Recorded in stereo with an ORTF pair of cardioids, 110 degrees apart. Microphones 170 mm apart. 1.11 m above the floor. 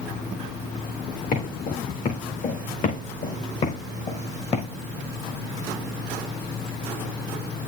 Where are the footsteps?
55° left, 5 m; by 4.7 s 40° left, 3.5 m.